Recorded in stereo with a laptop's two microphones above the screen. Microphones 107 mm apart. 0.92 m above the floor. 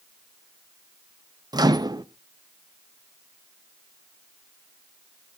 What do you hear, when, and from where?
1.5 s a microwave: 40° right (ahead or behind), 0.6 m